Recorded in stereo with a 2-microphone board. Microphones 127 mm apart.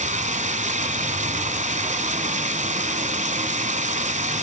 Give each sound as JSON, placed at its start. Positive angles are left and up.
{"t": 0.0, "sound": "running water", "side_deg": -75, "distance_m": 1.3}